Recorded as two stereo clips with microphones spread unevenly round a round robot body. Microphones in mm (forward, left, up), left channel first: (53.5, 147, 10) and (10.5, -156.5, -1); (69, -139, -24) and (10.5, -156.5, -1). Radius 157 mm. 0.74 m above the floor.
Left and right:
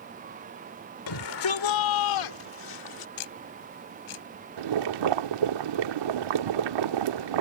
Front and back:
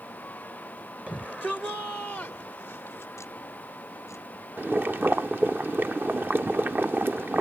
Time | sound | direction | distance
1.1 | a shout | 105° left | ?
3.2 | ticking | 95° left | ?
4.6 | boiling | 100° right | ?